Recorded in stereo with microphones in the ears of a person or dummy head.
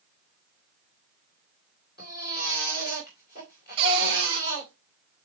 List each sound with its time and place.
2.0 s a baby crying: 45° left (ahead or behind), 3.5 m
3.8 s a cupboard door: 30° right (ahead or behind), 2.0 m